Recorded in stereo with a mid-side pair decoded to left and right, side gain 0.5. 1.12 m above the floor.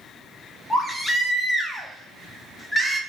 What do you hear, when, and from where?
0.7 s a baby crying: 5° left, 0.9 m